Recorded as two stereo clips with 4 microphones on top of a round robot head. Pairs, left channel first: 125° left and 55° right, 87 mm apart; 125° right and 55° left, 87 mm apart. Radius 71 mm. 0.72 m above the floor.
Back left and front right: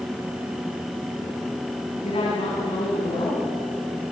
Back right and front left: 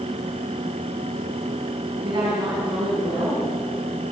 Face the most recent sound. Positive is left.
turn(degrees=100)